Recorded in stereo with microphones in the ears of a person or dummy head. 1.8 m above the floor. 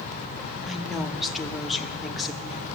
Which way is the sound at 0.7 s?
Centre (ahead or behind).